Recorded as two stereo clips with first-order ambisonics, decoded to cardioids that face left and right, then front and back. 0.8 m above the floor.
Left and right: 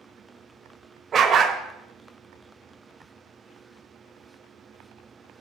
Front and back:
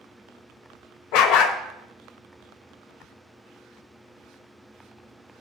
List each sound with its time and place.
1.1 s a dog barking: 25° right, 0.9 m